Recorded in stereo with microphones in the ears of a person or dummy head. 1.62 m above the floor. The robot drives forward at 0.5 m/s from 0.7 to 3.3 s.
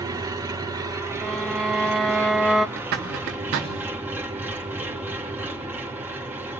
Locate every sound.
0.0 s an engine running: 15° right (ahead or behind), 1.6 m; by 6.6 s 10° right (ahead or behind), 3 m
1.2 s a violin: centre (ahead or behind), 1.1 m
2.8 s a zipper: 60° right (ahead or behind), 3 m; by 3.7 s 65° right (ahead or behind), 3 m